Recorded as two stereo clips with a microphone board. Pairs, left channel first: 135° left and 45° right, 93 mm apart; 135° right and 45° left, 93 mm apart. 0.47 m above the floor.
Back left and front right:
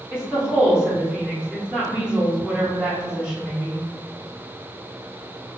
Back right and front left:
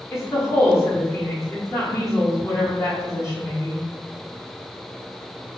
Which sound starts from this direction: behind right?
A woman speaking, at 0.1 s.